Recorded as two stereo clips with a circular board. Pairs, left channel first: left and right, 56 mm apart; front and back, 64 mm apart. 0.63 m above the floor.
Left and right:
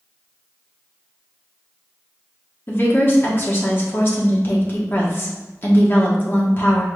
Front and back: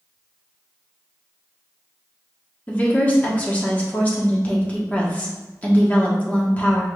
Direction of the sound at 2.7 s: 60° left.